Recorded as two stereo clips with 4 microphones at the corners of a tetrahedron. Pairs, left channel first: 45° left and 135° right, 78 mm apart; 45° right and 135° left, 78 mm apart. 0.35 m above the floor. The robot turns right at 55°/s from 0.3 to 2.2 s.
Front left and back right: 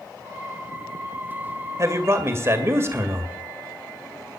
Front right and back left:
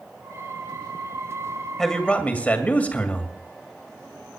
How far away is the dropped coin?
No dropped coin in this recording.